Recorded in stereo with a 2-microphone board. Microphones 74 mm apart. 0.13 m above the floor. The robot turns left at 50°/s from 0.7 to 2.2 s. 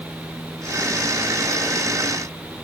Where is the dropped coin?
I don't hear a dropped coin.